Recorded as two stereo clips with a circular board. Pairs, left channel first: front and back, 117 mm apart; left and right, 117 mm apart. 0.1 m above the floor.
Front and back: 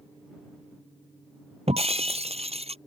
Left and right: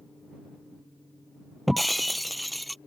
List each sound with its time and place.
1.7 s breaking glass: straight behind